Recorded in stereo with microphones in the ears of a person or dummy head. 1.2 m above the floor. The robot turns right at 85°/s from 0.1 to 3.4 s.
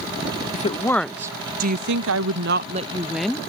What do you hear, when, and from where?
0.5 s a woman speaking: 130° left; by 3.4 s 15° left